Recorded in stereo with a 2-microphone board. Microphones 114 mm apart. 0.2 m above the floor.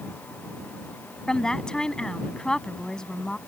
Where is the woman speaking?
5° left (ahead or behind).